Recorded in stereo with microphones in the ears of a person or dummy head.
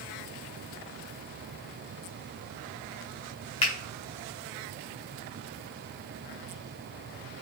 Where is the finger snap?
30° left (ahead or behind), 0.8 m.